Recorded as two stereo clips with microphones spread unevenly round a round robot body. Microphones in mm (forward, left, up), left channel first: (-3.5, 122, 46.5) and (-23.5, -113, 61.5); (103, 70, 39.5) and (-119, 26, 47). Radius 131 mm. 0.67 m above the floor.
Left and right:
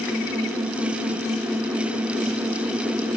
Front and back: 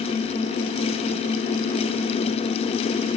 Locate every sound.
Only background noise.